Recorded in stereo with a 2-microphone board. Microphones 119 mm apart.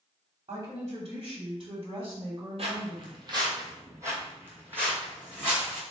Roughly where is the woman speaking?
Right.